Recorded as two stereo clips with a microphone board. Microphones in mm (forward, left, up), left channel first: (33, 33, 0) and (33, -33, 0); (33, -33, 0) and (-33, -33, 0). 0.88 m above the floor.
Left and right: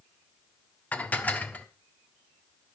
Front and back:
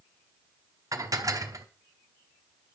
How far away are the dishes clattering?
About 1.0 m.